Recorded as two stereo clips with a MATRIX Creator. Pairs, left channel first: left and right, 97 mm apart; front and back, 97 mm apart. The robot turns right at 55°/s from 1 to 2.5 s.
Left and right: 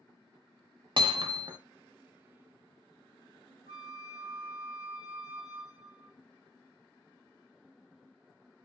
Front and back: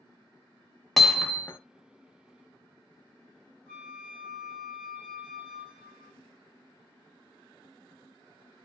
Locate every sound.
1.0 s hammering: 90° right, 0.7 m; by 1.6 s 55° right, 0.7 m
3.7 s a flute: 70° left, 1.0 m